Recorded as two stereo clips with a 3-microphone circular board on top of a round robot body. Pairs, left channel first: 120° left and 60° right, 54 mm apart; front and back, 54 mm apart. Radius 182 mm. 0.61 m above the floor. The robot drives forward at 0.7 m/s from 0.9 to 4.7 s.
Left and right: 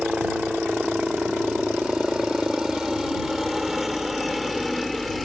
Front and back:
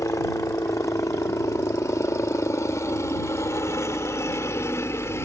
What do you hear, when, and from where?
0.0 s a helicopter: 15° left; by 5.3 s 30° left